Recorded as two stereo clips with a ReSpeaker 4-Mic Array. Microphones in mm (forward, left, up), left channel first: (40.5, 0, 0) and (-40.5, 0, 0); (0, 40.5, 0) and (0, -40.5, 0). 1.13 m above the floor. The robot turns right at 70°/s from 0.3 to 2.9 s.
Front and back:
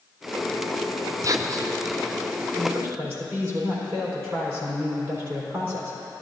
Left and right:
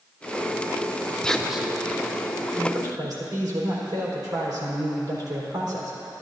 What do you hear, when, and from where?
1.2 s whispering: 165° left, 0.5 m; by 1.7 s 165° right, 0.5 m
2.6 s a man speaking: 150° right, 4 m; by 6.2 s 125° right, 4 m